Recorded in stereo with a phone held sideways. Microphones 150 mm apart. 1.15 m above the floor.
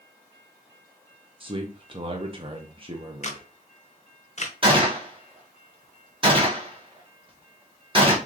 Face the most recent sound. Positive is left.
turn(degrees=-35)  # may be behind; listen again after turning